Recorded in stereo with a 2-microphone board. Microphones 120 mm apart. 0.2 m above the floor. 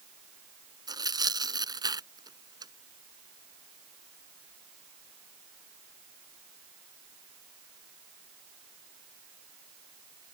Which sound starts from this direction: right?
Tearing paper, at 0.9 s.